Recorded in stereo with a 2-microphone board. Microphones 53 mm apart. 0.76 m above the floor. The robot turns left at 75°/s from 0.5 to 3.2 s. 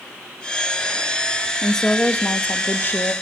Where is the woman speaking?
170° left, 0.7 m; by 3.1 s 55° left, 0.7 m.